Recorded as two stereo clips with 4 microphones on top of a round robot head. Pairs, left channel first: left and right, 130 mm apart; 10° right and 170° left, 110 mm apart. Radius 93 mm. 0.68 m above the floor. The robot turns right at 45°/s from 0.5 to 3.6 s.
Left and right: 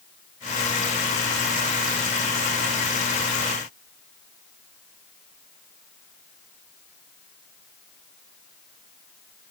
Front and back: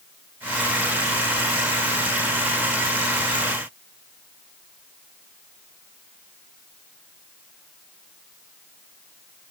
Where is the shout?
No shout in this recording.